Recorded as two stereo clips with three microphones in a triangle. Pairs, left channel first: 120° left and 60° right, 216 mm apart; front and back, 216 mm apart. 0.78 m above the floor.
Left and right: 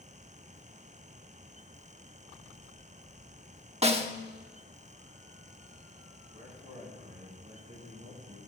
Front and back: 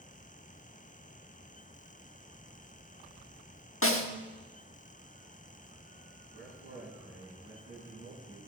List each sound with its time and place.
3.8 s a snare drum: straight ahead, 1.2 m
6.3 s a man speaking: 5° right, 6 m